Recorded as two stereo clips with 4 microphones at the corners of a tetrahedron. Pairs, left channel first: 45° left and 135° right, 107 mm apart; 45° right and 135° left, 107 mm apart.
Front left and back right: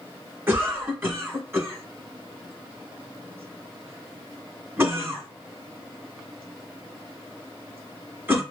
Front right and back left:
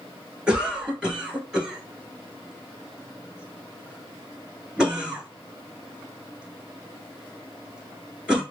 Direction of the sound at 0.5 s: 155° right.